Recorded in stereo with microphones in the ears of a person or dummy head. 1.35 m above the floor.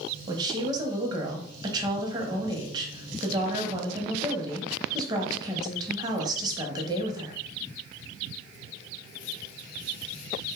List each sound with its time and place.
0.3 s a woman speaking: 20° right (ahead or behind), 0.7 m